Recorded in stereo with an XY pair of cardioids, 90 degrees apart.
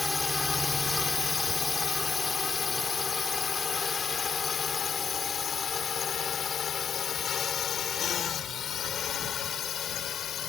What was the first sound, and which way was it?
A drone, 25° left.